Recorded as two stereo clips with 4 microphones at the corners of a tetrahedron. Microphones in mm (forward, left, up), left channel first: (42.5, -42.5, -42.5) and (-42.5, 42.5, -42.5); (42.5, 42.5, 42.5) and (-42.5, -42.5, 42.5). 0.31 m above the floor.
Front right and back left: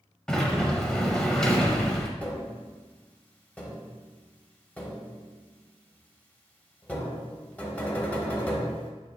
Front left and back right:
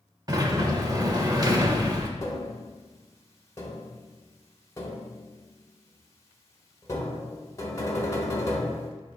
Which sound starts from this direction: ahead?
Tapping, at 2.2 s.